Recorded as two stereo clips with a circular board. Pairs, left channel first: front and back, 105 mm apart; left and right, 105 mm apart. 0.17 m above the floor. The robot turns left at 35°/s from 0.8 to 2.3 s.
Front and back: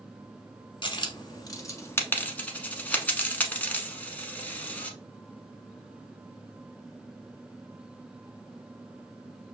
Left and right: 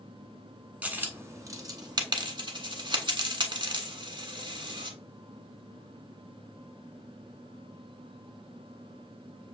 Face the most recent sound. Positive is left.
turn(degrees=-70)